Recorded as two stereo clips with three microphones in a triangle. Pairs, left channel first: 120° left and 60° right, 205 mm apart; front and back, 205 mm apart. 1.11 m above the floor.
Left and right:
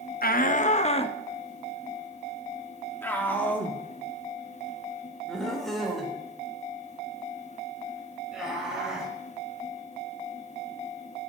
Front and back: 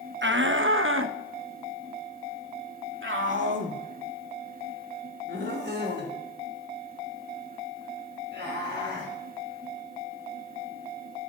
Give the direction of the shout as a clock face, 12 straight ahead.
7 o'clock.